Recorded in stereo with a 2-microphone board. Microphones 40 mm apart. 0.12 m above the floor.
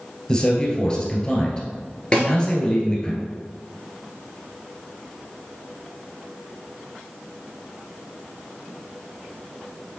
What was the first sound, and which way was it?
A man speaking, 20° left (ahead or behind).